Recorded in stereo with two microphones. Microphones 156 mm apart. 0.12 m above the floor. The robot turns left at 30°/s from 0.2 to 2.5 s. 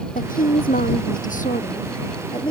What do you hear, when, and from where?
0.1 s a woman speaking: 105° left; by 2.5 s 35° left